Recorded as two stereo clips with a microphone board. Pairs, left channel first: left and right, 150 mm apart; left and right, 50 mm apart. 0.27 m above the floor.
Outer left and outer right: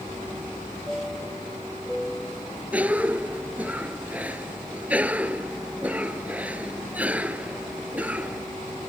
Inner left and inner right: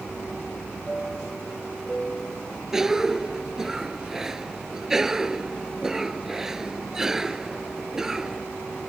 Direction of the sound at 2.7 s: 10° right (ahead or behind).